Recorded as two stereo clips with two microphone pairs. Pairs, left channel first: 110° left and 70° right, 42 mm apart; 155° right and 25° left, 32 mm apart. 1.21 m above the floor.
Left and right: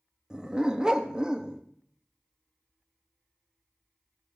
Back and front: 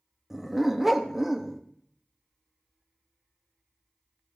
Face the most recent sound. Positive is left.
turn(degrees=-50)